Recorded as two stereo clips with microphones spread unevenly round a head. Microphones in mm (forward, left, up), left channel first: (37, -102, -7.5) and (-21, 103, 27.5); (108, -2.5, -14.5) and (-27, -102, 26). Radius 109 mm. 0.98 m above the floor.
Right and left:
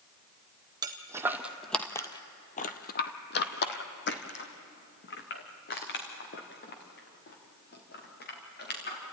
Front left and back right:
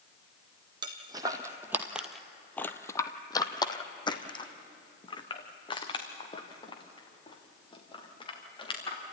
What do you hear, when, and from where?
0.8 s footsteps: 165° left, 1.6 m; by 9.0 s 25° right, 6 m